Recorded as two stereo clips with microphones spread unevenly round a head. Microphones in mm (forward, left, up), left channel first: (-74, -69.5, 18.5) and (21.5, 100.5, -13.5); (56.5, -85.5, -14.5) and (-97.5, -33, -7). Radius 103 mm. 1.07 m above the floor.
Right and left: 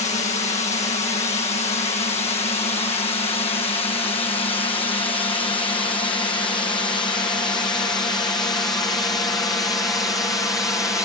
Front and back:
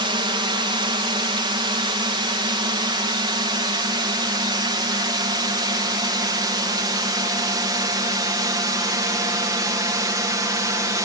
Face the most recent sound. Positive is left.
turn(degrees=170)